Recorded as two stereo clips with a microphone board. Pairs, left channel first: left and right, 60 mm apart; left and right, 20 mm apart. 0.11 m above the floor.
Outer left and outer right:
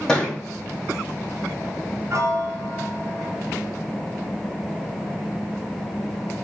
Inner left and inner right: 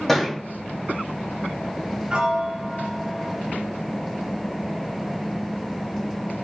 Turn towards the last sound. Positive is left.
turn(degrees=-60)  # may be behind; listen again after turning